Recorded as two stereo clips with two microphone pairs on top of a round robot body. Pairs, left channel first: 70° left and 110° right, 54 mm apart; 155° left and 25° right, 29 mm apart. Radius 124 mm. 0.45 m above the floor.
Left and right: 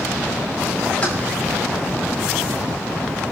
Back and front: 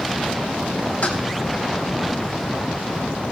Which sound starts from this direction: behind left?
Keys jangling, at 1.0 s.